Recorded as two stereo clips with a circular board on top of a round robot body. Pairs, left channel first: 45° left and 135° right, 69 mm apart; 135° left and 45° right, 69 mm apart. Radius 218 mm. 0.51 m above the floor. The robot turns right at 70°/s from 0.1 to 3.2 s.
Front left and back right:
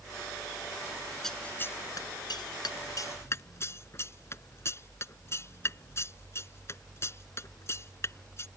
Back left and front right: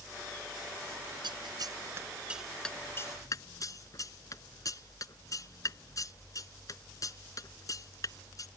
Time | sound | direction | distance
1.2 | scissors | 40° right | ?